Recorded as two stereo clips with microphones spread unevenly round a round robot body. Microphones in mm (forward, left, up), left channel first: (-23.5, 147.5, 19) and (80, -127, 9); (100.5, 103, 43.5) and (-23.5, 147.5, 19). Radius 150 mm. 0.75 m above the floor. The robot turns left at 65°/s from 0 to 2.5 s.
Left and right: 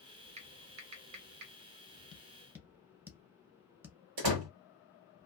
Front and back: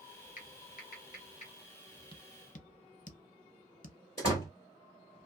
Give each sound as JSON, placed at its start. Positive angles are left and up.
{"t": 0.4, "sound": "typing on a keyboard", "azimuth_deg": 0, "distance_m": 0.9}
{"t": 2.1, "sound": "tapping", "azimuth_deg": 40, "distance_m": 0.7}
{"t": 4.2, "sound": "a door slam", "azimuth_deg": -80, "distance_m": 1.5}